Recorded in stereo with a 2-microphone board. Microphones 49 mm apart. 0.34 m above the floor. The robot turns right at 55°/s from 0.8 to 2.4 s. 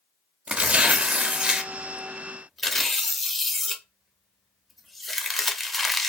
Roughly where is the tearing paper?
Right.